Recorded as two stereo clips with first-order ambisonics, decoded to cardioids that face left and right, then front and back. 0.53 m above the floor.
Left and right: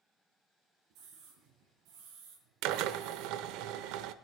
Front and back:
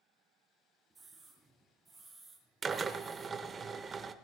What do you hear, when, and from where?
0.9 s a scream: 95° right, 7 m; by 3.6 s 70° right, 5 m
2.6 s a drill: 110° right, 0.8 m